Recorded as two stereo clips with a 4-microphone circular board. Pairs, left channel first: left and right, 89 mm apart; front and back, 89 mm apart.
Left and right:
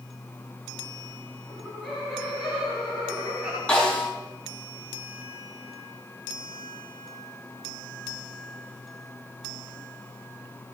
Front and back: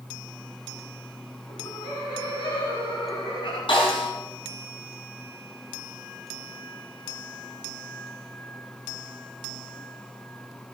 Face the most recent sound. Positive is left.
turn(degrees=10)